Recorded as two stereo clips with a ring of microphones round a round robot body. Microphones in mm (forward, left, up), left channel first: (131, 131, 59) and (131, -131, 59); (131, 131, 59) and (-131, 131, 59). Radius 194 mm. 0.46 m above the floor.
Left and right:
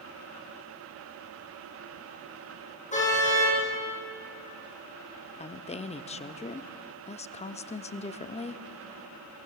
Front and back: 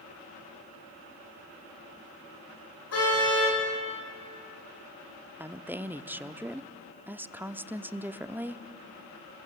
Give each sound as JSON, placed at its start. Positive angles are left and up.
{"t": 2.9, "sound": "a car horn", "azimuth_deg": 25, "distance_m": 9.0}
{"t": 5.4, "sound": "a woman speaking", "azimuth_deg": 105, "distance_m": 0.8}